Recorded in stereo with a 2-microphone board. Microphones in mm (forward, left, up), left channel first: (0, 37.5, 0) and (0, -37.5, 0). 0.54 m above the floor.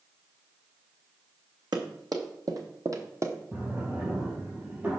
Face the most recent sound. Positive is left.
turn(degrees=-25)  # may be behind; listen again after turning